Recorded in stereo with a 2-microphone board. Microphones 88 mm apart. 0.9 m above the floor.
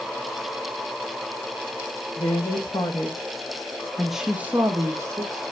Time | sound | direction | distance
2.2 | a woman speaking | 65° left (ahead or behind) | 1.3 m